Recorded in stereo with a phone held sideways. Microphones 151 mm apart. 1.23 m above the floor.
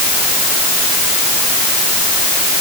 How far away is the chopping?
No chopping in this recording.